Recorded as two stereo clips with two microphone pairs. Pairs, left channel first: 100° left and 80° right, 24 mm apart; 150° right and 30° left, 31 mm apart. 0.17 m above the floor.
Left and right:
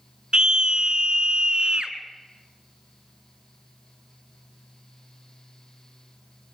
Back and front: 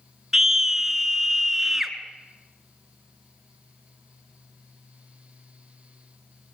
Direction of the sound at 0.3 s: 45° right.